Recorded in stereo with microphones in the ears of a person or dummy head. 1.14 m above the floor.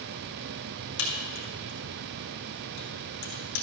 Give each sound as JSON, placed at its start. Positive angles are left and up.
{"t": 1.0, "sound": "a crack", "side_deg": 65, "distance_m": 3.0}